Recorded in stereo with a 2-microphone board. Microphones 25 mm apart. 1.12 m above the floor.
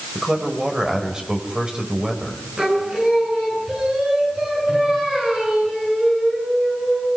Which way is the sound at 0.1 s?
35° right (ahead or behind).